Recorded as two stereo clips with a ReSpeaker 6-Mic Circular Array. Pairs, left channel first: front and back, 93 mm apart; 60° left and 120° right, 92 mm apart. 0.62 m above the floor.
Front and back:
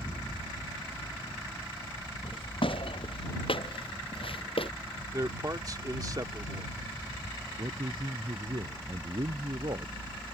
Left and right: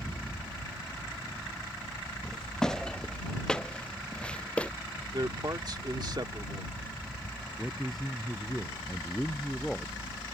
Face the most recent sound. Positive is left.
turn(degrees=150)